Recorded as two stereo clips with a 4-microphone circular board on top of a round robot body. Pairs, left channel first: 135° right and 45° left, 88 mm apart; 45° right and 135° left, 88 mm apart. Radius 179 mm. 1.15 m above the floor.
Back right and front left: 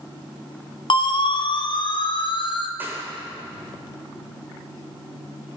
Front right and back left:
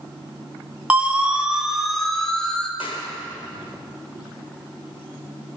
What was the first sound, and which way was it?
A siren, 150° right.